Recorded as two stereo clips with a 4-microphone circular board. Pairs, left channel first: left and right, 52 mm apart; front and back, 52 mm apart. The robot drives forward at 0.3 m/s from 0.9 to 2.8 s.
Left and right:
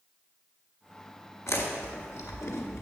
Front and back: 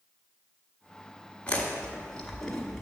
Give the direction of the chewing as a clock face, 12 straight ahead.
10 o'clock.